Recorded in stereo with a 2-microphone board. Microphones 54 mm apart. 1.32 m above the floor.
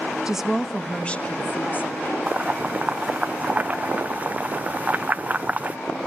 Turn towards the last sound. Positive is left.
turn(degrees=-30)  # may be behind; listen again after turning